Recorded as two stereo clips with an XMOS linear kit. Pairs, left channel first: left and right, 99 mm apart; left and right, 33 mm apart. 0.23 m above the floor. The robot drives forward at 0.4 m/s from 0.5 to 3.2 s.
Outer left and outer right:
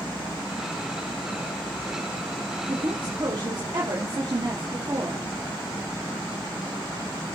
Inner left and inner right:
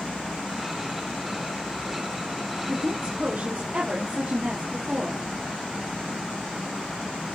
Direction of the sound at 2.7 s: 60° right (ahead or behind).